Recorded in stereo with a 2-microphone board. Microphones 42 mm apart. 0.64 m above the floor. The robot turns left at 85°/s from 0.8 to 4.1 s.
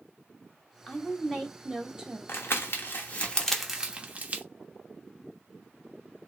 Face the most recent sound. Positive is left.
turn(degrees=-40)  # may be behind; listen again after turning